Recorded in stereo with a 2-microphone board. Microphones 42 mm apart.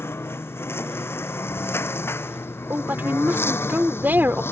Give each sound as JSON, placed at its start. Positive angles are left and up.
{"t": 0.0, "sound": "a lawn mower", "side_deg": 80}
{"t": 2.7, "sound": "a woman speaking", "side_deg": -50}